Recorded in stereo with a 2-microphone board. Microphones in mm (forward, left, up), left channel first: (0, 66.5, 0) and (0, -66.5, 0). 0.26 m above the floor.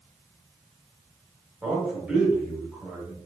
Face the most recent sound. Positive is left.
turn(degrees=-5)  # may be behind; listen again after turning